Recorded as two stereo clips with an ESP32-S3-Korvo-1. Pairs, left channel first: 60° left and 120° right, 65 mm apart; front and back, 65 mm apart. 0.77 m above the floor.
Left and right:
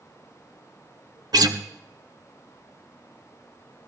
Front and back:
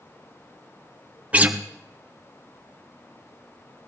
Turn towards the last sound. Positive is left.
turn(degrees=-110)